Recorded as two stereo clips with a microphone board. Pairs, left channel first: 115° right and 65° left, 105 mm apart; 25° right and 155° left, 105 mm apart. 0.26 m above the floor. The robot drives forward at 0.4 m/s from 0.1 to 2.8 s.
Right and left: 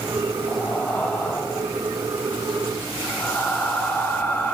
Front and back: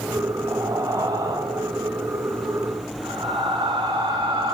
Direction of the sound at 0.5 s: 175° right.